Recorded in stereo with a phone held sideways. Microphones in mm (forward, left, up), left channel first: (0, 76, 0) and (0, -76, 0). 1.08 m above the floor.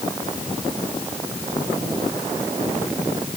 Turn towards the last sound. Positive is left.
No sound to turn to.